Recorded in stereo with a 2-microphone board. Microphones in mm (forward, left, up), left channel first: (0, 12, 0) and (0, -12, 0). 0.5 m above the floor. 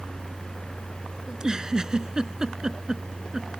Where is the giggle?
30° right (ahead or behind).